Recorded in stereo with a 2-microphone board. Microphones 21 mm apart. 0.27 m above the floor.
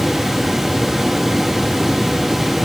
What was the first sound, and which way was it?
Only background noise.